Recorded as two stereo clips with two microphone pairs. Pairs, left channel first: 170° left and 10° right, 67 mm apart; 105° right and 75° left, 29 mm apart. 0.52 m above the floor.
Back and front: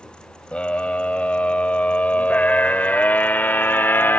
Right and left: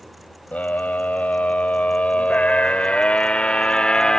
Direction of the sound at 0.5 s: 120° right.